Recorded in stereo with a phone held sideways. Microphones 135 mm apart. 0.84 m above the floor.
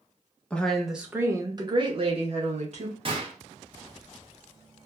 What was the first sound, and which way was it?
A woman speaking, 10° left (ahead or behind).